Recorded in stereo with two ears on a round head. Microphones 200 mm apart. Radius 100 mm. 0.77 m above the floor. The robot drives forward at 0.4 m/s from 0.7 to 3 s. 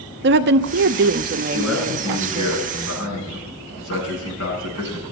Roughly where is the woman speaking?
Right.